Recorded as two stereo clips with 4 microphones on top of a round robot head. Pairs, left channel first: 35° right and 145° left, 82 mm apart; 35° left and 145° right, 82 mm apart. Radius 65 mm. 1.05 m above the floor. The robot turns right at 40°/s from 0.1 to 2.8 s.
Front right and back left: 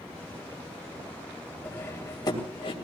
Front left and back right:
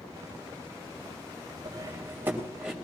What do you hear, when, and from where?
1.6 s cutlery clinking: 100° right, 3 m; by 2.7 s 60° right, 3 m